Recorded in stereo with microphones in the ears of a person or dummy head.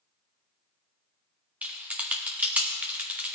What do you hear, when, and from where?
1.6 s typing on a keyboard: 5° right (ahead or behind), 0.6 m